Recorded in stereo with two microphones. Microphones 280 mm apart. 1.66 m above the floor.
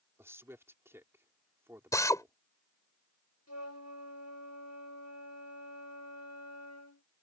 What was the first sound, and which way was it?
A man speaking, 10° right (ahead or behind).